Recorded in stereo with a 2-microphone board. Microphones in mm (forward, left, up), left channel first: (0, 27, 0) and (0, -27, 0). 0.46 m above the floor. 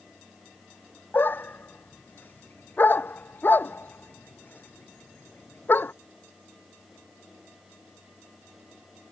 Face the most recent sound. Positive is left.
turn(degrees=35)  # may be behind; listen again after turning